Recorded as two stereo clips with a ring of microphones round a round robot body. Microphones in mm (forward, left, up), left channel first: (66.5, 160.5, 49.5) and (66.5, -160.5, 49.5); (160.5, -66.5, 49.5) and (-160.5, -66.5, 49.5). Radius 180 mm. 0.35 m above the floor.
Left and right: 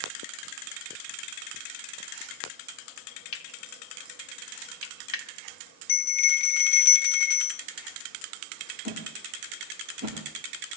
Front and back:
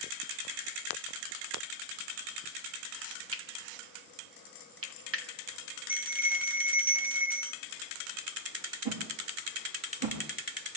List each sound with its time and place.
3.3 s cutlery clinking: 125° left, 2 m
5.9 s a bell: 95° left, 0.6 m
8.8 s a whoosh: 160° right, 8 m